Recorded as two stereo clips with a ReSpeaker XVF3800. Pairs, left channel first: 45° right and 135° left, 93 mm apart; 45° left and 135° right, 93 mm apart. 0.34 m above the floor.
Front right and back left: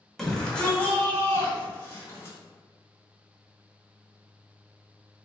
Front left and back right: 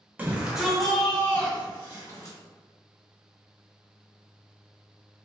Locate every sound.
0.2 s a shout: 120° right, 0.9 m; by 2.4 s 5° left, 1.3 m